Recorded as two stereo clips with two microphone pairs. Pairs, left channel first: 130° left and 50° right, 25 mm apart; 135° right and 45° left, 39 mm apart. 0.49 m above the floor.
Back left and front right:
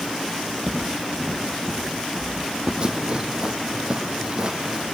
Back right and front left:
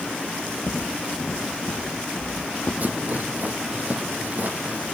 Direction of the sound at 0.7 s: 145° right.